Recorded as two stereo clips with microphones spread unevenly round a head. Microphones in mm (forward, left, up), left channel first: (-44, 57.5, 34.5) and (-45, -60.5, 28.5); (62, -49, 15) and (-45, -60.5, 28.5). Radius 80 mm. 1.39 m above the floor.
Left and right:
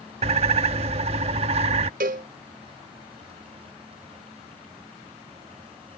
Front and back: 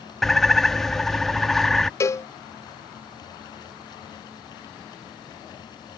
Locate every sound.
0.2 s a bird: 90° right
2.0 s a cowbell: 60° right